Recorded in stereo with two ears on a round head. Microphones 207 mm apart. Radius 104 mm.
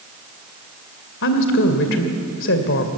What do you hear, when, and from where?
1.2 s a woman speaking: 60° left (ahead or behind), 2 m